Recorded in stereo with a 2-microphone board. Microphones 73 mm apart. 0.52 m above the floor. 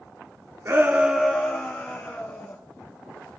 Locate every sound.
0.7 s a shout: 40° right (ahead or behind), 0.8 m; by 2.6 s 35° left (ahead or behind), 2 m